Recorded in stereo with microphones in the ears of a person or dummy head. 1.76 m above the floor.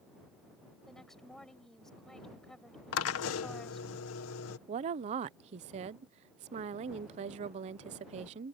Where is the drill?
85° left.